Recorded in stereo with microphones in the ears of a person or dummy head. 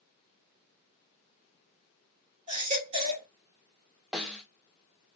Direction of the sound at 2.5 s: 45° right (ahead or behind).